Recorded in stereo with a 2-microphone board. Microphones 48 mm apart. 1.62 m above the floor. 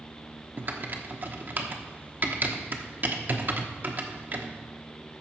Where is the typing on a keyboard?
40° right (ahead or behind), 1.0 m.